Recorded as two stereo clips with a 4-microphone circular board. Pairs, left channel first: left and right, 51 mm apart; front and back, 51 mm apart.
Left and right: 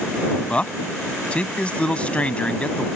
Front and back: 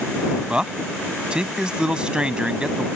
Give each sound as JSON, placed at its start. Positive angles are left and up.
{"t": 0.5, "sound": "a man speaking", "azimuth_deg": 125}